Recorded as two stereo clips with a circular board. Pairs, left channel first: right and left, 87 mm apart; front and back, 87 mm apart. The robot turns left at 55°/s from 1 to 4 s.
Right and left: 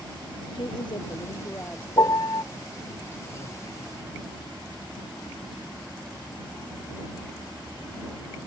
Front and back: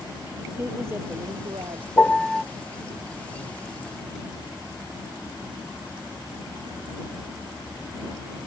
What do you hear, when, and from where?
0.5 s a woman speaking: 115° right; by 1.9 s 165° right
2.0 s a piano: 65° right; by 2.4 s 95° right